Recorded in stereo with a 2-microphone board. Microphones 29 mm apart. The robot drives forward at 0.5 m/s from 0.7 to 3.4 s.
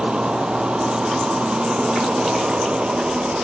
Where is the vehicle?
35° right (ahead or behind); by 3.4 s 45° right (ahead or behind).